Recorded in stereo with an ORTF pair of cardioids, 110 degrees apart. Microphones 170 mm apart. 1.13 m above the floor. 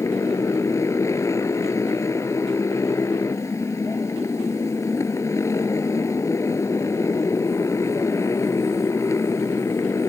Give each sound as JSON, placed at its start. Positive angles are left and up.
{"t": 0.0, "sound": "a motorcycle", "azimuth_deg": 15}